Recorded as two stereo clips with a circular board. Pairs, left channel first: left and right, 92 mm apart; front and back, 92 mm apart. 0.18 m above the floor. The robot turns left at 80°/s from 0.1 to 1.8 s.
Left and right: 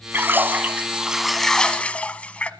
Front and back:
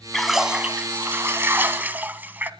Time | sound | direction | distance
0.1 | a splash | 85° right | 1.2 m